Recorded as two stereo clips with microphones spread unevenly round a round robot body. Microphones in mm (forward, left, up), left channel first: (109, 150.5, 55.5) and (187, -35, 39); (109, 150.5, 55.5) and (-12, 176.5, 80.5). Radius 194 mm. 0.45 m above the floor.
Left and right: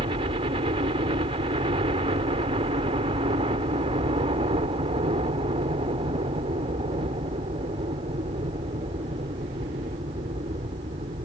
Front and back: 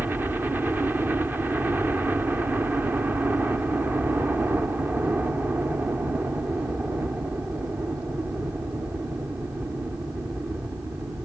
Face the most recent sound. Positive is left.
turn(degrees=-110)